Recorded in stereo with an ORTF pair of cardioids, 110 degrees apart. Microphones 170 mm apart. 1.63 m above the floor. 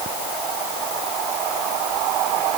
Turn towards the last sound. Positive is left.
No sound to turn to.